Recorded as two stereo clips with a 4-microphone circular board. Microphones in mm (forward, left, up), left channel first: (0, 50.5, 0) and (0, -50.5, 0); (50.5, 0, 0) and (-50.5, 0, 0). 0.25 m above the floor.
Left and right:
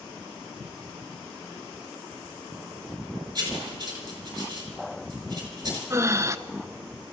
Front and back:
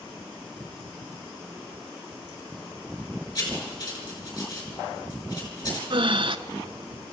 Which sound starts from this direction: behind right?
Breathing, at 5.9 s.